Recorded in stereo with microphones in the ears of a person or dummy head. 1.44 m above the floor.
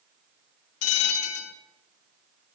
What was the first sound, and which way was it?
A bell, 85° left.